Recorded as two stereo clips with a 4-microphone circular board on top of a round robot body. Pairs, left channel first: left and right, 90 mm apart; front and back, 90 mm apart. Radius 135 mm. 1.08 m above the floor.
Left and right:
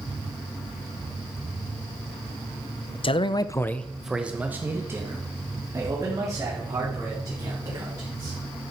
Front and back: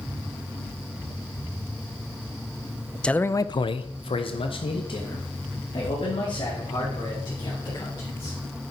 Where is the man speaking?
80° left, 0.7 m; by 8.4 s 40° right, 5 m.